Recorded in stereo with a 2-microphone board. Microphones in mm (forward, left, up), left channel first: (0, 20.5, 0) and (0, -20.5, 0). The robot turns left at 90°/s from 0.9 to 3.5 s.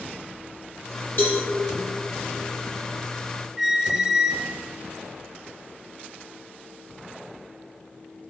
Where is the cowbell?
50° left (ahead or behind), 5 m; by 1.4 s 30° left (ahead or behind), 5 m.